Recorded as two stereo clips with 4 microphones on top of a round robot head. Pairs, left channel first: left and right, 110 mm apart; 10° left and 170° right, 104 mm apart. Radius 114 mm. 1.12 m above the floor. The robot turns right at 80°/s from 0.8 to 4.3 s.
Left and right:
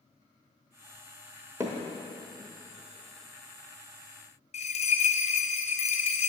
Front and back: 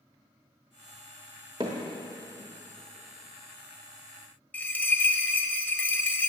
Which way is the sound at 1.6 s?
145° right.